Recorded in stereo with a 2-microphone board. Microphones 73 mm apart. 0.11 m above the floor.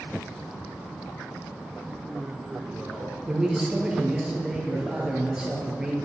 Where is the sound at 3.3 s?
10° right (ahead or behind), 2 m.